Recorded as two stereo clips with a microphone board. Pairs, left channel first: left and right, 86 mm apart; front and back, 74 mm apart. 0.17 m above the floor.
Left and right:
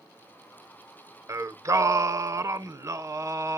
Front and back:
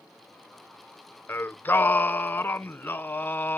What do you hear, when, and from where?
1.3 s singing: 55° right, 0.6 m